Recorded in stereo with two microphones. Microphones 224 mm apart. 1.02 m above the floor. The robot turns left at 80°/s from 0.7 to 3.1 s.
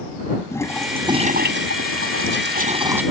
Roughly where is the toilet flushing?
Ahead.